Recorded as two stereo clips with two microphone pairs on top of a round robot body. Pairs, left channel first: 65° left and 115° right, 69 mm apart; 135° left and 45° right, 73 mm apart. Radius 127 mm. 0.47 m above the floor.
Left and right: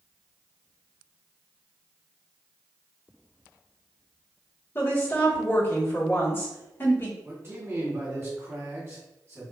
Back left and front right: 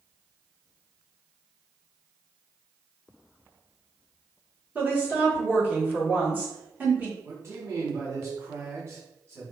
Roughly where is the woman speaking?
Ahead left.